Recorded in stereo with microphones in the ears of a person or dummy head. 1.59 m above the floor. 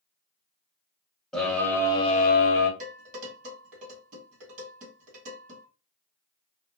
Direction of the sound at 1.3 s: 5° left (ahead or behind).